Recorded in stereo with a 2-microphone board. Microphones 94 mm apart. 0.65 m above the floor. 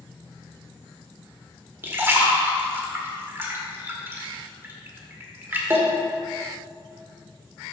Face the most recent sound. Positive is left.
turn(degrees=-25)  # may be behind; listen again after turning